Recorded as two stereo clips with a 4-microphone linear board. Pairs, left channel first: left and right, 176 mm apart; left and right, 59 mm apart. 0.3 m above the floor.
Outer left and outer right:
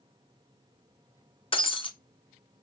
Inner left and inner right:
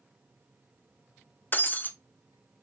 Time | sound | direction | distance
1.5 | breaking glass | 35° left (ahead or behind) | 0.5 m